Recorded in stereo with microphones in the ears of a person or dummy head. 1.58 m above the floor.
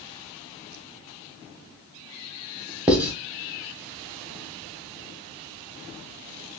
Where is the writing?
5° right (ahead or behind), 1.0 m.